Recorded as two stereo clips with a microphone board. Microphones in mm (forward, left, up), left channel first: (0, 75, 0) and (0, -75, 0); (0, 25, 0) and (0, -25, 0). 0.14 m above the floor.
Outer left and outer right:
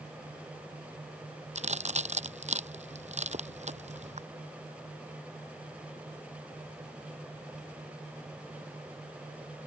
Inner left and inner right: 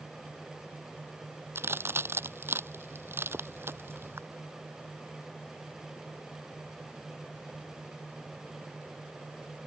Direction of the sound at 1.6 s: 50° right (ahead or behind).